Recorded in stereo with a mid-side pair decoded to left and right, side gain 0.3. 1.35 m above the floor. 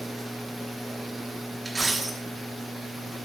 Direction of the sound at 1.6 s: 30° right.